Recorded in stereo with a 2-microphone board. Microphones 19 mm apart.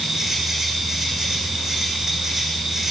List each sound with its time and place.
0.0 s an insect: 30° right (ahead or behind), 7.5 m